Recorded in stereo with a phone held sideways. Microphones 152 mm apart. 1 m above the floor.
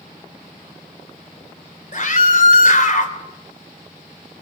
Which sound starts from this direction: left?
A scream, at 1.9 s.